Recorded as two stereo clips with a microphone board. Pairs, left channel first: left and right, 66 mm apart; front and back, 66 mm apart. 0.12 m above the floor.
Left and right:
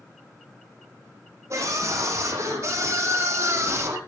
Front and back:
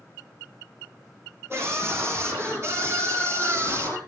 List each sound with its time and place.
1.5 s a scream: 130° right, 8 m; by 4.0 s 135° right, 5.5 m